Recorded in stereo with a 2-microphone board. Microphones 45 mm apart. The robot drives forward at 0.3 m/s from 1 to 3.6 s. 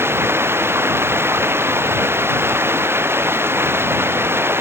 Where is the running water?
60° right (ahead or behind).